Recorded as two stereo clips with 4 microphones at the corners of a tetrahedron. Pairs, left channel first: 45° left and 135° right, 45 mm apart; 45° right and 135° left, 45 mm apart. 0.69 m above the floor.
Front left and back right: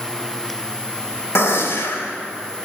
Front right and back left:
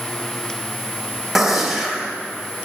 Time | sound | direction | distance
1.4 | a gunshot | 50° left | 0.8 m